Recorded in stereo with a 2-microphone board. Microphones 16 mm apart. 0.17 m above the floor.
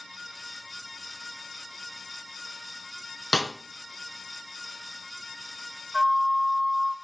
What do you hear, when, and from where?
3.3 s a snare drum: 50° left (ahead or behind), 2 m
5.9 s a flute: 5° right (ahead or behind), 1.4 m